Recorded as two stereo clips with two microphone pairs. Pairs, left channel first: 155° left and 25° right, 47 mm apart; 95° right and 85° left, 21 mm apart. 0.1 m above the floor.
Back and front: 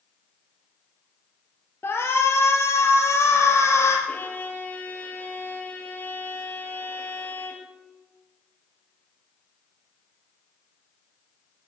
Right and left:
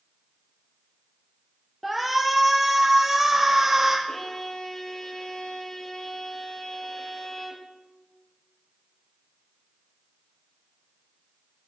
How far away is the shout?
About 1.9 m.